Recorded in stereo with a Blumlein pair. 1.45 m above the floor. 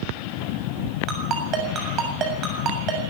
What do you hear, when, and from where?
1.1 s a ringtone: 30° right, 7 m